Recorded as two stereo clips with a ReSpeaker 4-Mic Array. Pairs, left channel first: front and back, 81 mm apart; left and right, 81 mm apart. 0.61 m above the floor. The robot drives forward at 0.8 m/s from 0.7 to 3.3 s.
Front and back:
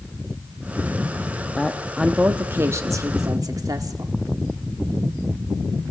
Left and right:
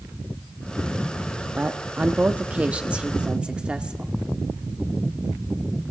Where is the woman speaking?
60° right, 1.1 m; by 4.1 s 165° right, 1.6 m.